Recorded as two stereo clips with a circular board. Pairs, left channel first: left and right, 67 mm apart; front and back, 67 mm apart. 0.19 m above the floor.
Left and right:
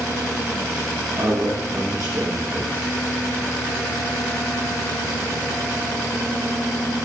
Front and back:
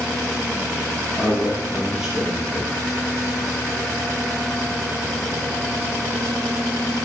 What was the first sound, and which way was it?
A man speaking, 100° right.